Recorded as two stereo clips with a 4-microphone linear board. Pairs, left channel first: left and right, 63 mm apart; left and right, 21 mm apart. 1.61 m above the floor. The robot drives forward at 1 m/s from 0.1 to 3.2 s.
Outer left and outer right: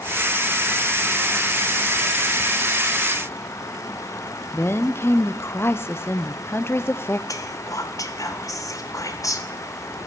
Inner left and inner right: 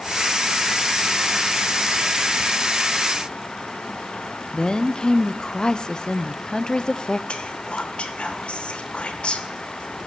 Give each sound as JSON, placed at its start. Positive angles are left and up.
{"t": 4.5, "sound": "a woman speaking", "side_deg": 40, "distance_m": 0.6}
{"t": 7.3, "sound": "whispering", "side_deg": 60, "distance_m": 1.7}